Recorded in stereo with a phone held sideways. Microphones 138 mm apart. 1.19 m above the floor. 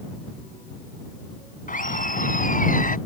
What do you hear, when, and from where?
1.7 s laughter: 75° left (ahead or behind)